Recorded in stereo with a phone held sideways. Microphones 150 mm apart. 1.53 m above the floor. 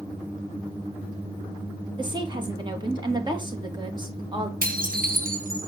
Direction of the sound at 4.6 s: 70° right (ahead or behind).